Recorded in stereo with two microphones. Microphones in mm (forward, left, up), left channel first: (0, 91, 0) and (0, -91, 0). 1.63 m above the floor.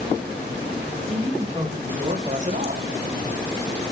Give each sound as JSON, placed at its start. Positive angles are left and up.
{"t": 1.1, "sound": "a man speaking", "side_deg": -35, "distance_m": 3.0}